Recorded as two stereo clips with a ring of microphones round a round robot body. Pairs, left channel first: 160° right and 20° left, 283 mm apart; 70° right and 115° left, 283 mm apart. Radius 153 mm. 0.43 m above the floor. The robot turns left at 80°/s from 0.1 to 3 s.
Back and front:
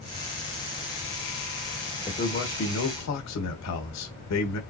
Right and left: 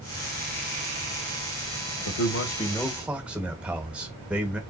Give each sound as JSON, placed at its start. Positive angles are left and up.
{"t": 2.0, "sound": "a man speaking", "azimuth_deg": -85, "distance_m": 1.3}